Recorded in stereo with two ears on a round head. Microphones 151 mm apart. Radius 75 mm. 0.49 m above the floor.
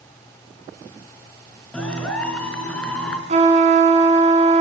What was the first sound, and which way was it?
A clap, 5° left (ahead or behind).